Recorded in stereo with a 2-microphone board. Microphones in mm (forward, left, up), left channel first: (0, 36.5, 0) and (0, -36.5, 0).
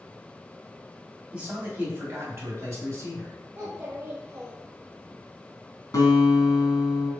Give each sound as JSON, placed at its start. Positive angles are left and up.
{"t": 1.3, "sound": "a man speaking", "side_deg": -20, "distance_m": 1.6}
{"t": 3.5, "sound": "a child speaking", "side_deg": -30, "distance_m": 0.9}
{"t": 5.9, "sound": "a guitar", "side_deg": 50, "distance_m": 1.7}